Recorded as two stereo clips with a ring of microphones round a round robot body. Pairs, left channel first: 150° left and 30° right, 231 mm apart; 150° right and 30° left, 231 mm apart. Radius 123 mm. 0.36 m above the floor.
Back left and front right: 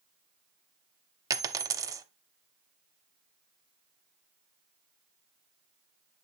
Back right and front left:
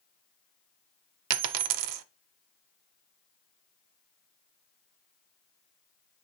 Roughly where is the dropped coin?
Ahead left.